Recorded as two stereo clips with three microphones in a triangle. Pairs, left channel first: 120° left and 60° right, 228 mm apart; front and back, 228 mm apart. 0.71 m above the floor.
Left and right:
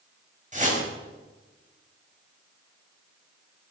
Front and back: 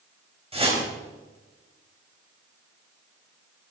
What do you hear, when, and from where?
0.5 s a whoosh: 115° right, 4.5 m